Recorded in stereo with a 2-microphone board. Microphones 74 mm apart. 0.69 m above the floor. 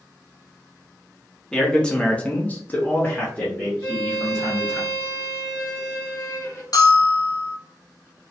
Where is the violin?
35° left (ahead or behind), 1.2 m.